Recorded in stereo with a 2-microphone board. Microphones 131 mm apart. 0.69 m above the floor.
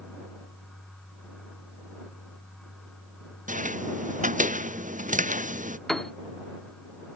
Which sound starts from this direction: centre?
A piano, at 5.9 s.